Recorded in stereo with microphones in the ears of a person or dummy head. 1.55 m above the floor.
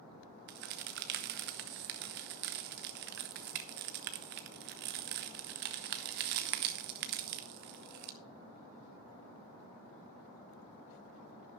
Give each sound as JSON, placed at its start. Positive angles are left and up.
{"t": 0.5, "sound": "a crack", "side_deg": -50, "distance_m": 0.7}